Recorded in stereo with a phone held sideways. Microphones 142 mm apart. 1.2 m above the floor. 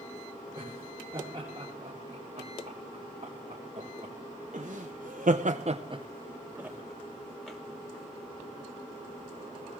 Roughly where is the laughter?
Right.